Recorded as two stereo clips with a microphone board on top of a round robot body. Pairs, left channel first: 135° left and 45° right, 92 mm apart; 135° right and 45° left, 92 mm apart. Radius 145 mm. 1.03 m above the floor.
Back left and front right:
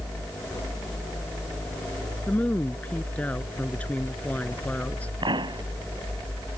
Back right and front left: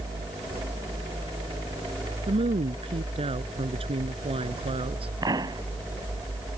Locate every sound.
2.3 s a woman speaking: 60° left
5.2 s a pop: 5° right